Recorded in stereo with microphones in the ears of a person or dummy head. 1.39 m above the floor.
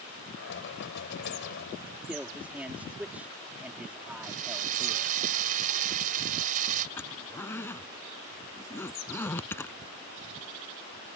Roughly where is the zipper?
Centre.